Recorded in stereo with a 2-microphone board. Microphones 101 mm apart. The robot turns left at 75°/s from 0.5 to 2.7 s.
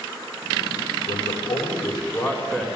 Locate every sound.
1.1 s a man speaking: 115° left, 6.5 m; by 2.7 s 5° right, 6.5 m